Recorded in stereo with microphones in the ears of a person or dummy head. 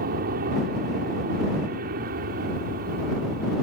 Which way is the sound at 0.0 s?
50° right (ahead or behind).